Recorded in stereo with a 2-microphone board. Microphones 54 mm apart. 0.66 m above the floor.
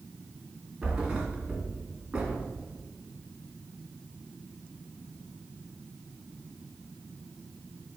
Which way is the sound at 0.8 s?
10° right (ahead or behind).